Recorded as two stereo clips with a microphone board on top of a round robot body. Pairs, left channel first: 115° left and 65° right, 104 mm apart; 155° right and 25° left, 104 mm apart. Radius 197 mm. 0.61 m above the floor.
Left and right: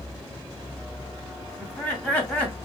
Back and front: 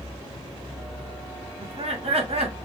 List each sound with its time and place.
1.6 s laughter: 35° left, 1.9 m